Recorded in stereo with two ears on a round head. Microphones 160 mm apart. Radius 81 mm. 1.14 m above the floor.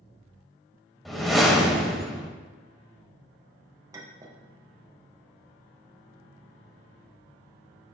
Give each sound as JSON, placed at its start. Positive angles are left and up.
{"t": 1.1, "sound": "a whoosh", "side_deg": 0, "distance_m": 0.7}
{"t": 3.9, "sound": "a clink", "side_deg": -15, "distance_m": 0.5}